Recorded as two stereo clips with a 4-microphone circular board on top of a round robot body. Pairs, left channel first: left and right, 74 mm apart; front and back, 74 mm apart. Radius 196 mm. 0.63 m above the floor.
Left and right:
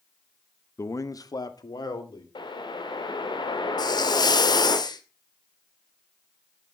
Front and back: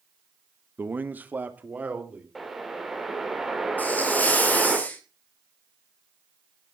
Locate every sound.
0.8 s a man speaking: 125° left, 1.1 m; by 2.2 s 110° left, 3 m
2.4 s a whoosh: 90° left, 2.0 m
3.8 s a hiss: 70° left, 1.8 m